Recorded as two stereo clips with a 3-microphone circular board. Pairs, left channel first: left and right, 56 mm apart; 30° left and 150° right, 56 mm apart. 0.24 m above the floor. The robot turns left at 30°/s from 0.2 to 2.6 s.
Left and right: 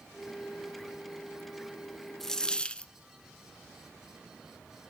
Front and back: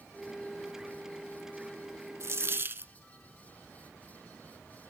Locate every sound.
2.2 s a dropped coin: 175° left, 0.7 m; by 2.9 s 160° left, 0.7 m